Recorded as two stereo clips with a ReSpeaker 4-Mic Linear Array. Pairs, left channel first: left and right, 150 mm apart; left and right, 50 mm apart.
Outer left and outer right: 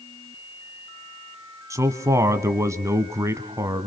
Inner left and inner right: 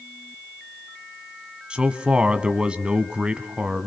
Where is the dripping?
I don't hear dripping.